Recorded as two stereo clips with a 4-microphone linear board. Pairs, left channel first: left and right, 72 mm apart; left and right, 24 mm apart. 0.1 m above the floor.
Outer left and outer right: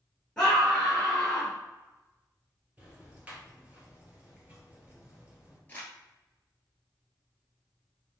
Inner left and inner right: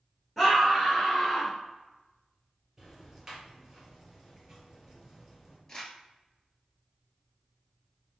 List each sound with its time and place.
0.4 s a scream: 5° left (ahead or behind), 1.4 m
2.8 s ticking: 15° right (ahead or behind), 2.0 m
5.7 s crumpling: 25° left (ahead or behind), 1.3 m